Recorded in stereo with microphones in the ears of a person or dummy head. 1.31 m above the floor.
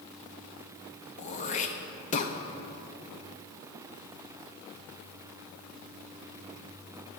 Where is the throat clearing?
35° left (ahead or behind), 0.6 m.